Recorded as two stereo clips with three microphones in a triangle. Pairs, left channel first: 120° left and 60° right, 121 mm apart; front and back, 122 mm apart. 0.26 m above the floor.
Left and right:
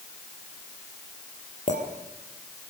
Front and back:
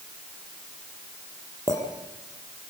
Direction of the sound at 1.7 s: 115° left.